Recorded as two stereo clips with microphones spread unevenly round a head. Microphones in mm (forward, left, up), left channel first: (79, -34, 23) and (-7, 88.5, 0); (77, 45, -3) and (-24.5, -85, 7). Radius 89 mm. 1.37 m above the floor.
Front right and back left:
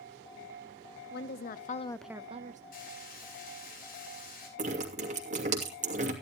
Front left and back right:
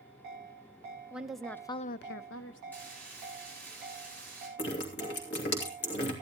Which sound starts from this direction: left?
Dripping, at 4.6 s.